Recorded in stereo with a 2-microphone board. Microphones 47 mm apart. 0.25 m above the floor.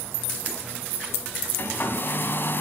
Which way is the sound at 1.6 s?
50° left (ahead or behind).